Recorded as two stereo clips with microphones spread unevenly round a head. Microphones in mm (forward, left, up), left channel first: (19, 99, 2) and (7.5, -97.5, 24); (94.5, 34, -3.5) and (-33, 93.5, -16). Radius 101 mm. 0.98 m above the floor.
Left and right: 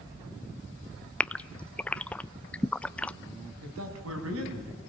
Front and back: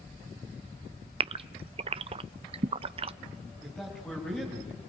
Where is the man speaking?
110° right, 6.5 m.